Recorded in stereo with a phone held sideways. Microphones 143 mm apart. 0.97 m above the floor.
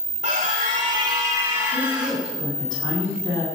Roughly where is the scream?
Right.